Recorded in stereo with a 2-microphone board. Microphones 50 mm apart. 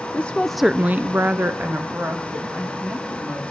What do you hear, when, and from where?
0.1 s a woman speaking: 25° left (ahead or behind), 0.8 m; by 3.4 s 45° right (ahead or behind), 3.5 m